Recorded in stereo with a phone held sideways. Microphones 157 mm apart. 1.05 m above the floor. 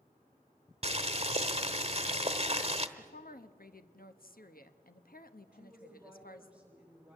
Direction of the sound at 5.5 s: 5° right (ahead or behind).